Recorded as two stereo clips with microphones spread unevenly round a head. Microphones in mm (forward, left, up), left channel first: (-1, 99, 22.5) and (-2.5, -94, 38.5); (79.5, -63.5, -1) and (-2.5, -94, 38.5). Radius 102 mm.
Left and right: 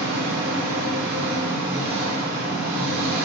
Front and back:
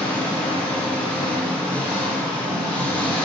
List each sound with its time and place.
0.0 s an engine running: 45° right, 1.0 m